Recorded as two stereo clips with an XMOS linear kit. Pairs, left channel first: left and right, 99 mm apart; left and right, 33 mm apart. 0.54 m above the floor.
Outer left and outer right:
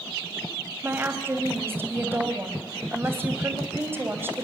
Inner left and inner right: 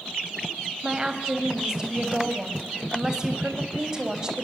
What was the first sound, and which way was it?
A woman speaking, 20° right (ahead or behind).